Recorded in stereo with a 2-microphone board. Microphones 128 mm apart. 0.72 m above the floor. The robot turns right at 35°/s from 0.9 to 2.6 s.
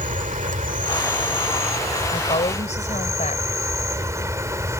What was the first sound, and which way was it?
An insect, 85° right.